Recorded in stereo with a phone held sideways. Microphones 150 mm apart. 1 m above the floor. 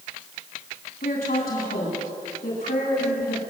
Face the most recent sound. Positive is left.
turn(degrees=80)